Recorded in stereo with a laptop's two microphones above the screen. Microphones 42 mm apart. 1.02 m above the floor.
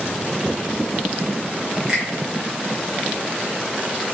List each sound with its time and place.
1.9 s a finger snap: 25° right (ahead or behind), 0.8 m